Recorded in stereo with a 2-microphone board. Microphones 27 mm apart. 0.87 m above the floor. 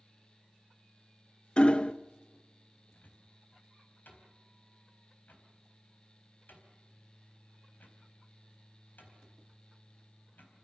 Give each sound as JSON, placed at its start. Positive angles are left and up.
{"t": 1.6, "sound": "hammering", "side_deg": 30, "distance_m": 0.8}
{"t": 2.9, "sound": "a cupboard door", "side_deg": 85, "distance_m": 4.5}